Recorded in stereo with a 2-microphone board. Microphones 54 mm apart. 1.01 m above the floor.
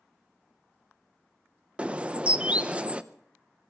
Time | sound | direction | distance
1.8 | a bird | 25° right (ahead or behind) | 0.6 m